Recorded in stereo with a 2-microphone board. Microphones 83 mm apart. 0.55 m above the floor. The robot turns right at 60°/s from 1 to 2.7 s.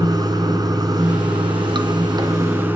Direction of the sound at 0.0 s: 125° right.